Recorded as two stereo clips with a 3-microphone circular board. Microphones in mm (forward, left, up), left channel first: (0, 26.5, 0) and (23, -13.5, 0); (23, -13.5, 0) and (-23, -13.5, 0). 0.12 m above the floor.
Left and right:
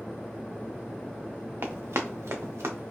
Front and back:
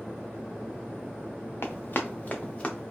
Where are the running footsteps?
30° right, 0.7 m; by 2.9 s 70° right, 1.0 m.